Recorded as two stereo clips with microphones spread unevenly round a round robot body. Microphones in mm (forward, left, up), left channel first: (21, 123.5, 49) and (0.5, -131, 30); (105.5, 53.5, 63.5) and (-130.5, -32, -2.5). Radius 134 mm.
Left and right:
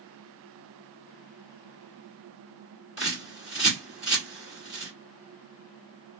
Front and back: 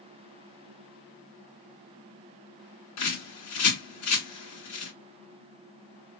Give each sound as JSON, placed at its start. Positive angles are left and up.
{"t": 3.0, "sound": "a bird", "azimuth_deg": -10, "distance_m": 2.0}